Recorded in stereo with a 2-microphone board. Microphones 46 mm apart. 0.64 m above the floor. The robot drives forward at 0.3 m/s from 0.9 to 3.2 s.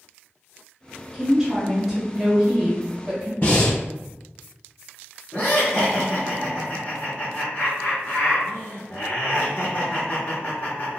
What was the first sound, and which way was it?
A woman speaking, 10° right (ahead or behind).